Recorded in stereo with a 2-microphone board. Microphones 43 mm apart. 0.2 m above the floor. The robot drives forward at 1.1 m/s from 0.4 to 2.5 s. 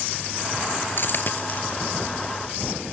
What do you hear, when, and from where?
1.0 s a dropped coin: 55° left (ahead or behind), 1.3 m; by 1.8 s 35° left (ahead or behind), 1.9 m